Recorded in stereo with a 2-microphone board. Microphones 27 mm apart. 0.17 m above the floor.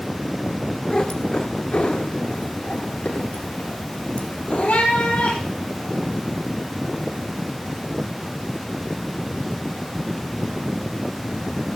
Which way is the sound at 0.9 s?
30° left (ahead or behind).